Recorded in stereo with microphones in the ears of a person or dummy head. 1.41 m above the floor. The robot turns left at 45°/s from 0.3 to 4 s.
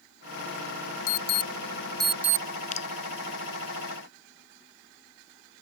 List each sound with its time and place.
1.1 s an alarm: 50° left (ahead or behind); by 2.5 s 15° right (ahead or behind)
2.7 s dripping: 45° left (ahead or behind); by 2.9 s 40° left (ahead or behind)